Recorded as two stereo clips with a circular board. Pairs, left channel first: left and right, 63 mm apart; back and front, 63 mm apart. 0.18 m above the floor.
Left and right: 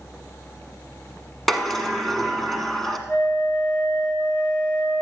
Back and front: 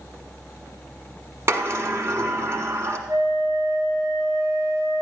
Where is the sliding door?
5° left, 1.1 m.